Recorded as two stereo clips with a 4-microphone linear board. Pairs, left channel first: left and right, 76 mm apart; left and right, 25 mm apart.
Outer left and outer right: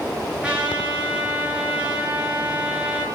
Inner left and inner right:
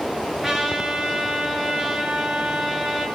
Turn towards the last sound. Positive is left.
turn(degrees=-15)  # may be behind; listen again after turning